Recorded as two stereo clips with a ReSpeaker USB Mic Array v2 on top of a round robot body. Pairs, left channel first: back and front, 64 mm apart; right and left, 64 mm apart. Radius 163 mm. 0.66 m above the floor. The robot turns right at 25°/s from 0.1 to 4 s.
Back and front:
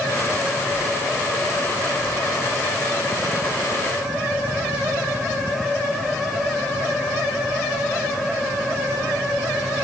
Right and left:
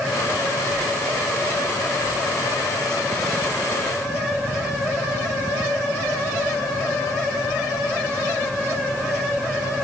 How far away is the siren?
No siren in this recording.